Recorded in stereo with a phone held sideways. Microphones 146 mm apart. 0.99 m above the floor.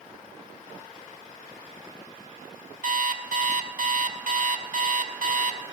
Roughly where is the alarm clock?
Right.